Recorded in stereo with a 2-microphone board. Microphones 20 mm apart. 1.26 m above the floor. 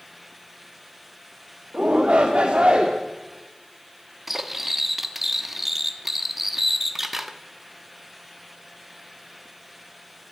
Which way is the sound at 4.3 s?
15° right (ahead or behind).